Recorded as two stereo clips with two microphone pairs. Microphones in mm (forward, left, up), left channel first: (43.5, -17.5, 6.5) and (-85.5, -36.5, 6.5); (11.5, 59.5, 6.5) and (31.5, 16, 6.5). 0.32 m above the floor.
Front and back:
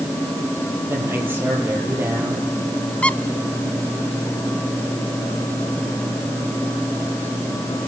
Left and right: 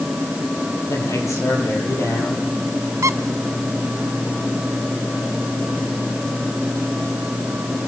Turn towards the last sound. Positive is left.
turn(degrees=-75)